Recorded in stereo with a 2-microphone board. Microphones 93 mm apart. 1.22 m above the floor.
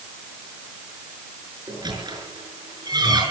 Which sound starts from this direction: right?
A squeak, at 1.7 s.